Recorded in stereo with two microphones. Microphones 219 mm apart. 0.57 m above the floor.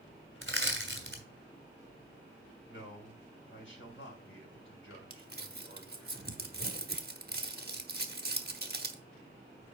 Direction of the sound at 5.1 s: 45° right (ahead or behind).